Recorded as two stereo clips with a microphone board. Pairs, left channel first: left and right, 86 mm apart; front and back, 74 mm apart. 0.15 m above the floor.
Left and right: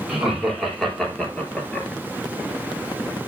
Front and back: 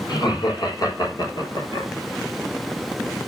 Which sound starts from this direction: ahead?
Laughter, at 0.1 s.